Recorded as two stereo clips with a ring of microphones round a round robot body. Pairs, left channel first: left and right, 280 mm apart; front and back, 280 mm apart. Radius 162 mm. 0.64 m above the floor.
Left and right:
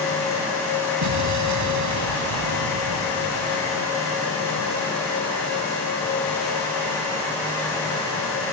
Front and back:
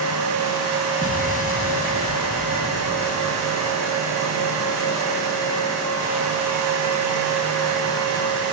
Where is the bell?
No bell in this recording.